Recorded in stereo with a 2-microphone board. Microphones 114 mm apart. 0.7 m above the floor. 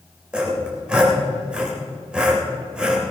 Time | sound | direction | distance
0.3 | sawing | 10° right (ahead or behind) | 3.5 m